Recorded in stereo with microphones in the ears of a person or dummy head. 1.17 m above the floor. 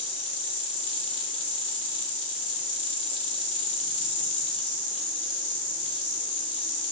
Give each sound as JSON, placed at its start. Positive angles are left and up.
{"t": 0.0, "sound": "an insect", "side_deg": 30, "distance_m": 6.0}